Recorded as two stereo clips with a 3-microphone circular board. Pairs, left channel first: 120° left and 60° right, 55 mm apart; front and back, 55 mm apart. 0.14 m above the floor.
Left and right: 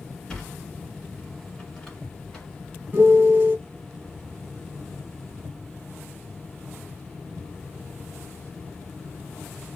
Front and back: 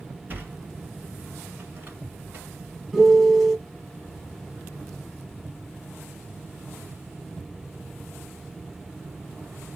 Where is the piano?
90° right, 1.6 m.